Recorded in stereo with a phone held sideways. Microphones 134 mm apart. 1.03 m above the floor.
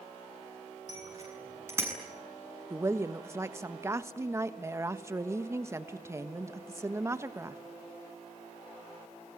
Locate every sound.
0.9 s a bicycle bell: 25° right (ahead or behind), 9 m; by 1.9 s 20° right (ahead or behind), 8 m
2.7 s a woman speaking: 20° right (ahead or behind), 1.3 m